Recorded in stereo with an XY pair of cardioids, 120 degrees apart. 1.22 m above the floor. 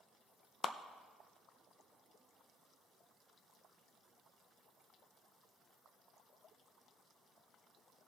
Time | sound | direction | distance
0.6 | a clap | 35° left | 0.6 m